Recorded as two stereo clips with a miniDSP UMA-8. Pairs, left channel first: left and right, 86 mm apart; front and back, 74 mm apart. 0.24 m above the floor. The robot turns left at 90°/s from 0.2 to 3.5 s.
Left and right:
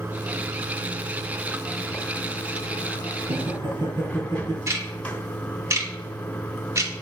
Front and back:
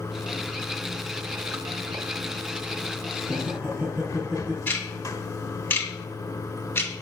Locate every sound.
0.0 s running water: 45° right, 1.2 m; by 7.0 s 20° left, 1.2 m
3.2 s laughter: 90° right, 6.5 m; by 4.6 s 115° right, 6.5 m
4.7 s ticking: 50° right, 2 m